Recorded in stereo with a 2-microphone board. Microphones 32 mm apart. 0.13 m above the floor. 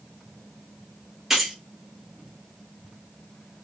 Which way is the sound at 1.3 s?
15° right (ahead or behind).